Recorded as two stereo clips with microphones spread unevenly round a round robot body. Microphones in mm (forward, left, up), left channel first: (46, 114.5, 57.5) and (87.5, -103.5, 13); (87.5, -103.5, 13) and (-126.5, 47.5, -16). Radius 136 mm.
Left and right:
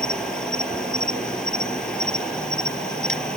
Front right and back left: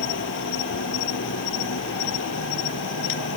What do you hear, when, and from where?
0.0 s an insect: 15° left